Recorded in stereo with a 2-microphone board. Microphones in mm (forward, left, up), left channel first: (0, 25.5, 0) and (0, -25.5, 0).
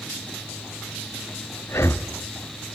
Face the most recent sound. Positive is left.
turn(degrees=60)  # may be behind; listen again after turning